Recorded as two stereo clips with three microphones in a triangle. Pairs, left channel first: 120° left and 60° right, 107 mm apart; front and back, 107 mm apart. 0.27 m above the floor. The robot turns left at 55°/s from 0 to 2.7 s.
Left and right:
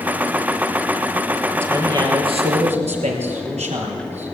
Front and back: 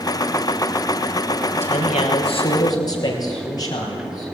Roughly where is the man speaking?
Ahead.